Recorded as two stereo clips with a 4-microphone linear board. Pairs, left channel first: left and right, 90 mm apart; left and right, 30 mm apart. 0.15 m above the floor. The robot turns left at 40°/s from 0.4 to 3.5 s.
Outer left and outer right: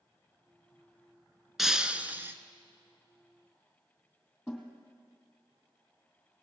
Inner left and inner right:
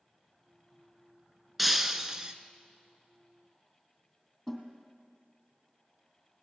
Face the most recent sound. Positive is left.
turn(degrees=0)  # may be behind; listen again after turning